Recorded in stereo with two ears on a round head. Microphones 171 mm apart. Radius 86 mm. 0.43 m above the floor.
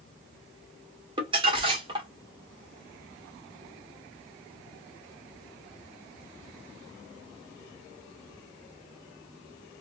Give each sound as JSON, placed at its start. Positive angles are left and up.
{"t": 1.2, "sound": "crumpling", "side_deg": -25, "distance_m": 1.1}